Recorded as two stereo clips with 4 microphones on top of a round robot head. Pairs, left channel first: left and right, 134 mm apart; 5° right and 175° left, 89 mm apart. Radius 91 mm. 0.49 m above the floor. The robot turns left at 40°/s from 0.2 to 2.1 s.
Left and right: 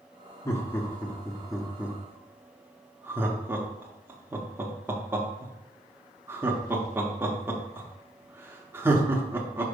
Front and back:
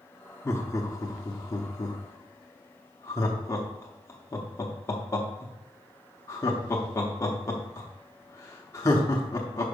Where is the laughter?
40° left, 0.8 m; by 9.7 s 30° right, 0.8 m.